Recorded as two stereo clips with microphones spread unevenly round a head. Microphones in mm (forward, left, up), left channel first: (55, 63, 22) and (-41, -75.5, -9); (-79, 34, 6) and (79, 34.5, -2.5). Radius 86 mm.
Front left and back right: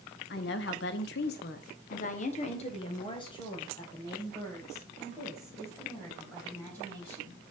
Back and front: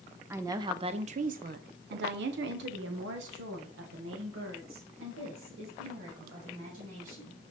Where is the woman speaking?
75° left, 0.9 m; by 7.4 s 25° right, 3.5 m.